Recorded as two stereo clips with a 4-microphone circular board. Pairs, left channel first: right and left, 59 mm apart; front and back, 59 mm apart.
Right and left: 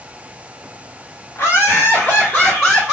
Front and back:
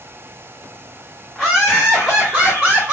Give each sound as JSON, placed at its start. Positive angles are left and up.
{"t": 1.4, "sound": "laughter", "azimuth_deg": -90, "distance_m": 1.6}